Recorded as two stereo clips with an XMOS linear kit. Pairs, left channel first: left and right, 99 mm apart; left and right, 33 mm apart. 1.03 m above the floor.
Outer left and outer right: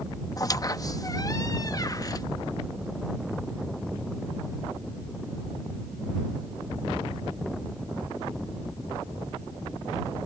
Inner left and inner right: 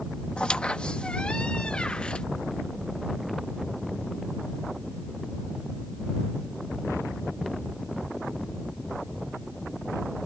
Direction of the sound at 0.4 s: 40° left (ahead or behind).